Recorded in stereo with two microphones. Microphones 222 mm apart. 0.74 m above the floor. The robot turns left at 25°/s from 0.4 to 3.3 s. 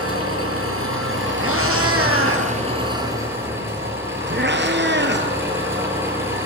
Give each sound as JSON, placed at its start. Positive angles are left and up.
{"t": 0.0, "sound": "an engine running", "azimuth_deg": -95, "distance_m": 8.5}
{"t": 1.4, "sound": "a cat meowing", "side_deg": -75, "distance_m": 3.0}